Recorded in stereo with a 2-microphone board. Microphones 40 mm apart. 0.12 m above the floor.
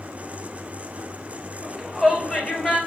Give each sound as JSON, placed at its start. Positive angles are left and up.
{"t": 1.6, "sound": "a shout", "side_deg": 5, "distance_m": 2.5}